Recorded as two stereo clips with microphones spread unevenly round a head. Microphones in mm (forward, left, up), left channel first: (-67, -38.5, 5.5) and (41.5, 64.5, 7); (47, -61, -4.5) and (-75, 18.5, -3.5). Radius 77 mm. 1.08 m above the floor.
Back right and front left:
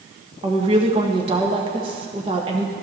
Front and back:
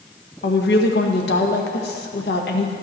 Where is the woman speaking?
15° right, 1.3 m.